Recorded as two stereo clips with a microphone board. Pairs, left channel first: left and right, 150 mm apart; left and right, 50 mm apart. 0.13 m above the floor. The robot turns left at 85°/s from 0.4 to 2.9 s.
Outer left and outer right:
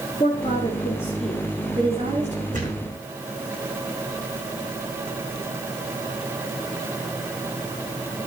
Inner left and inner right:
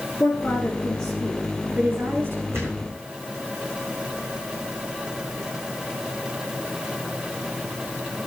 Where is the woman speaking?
70° left, 1.6 m; by 2.4 s 100° right, 1.6 m.